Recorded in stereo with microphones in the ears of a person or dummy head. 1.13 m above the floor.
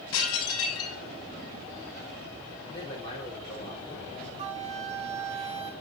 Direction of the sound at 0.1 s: 80° left.